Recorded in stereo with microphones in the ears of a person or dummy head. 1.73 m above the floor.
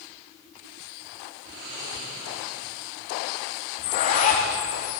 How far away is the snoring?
About 3 m.